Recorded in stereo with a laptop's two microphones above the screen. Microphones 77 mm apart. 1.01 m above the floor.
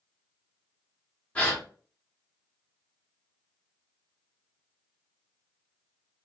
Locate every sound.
1.4 s a gasp: 15° left (ahead or behind), 1.0 m